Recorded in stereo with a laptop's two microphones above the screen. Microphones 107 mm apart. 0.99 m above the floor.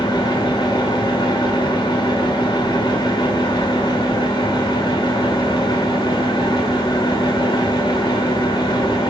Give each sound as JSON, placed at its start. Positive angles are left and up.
{"t": 0.0, "sound": "a fan", "side_deg": 50, "distance_m": 2.0}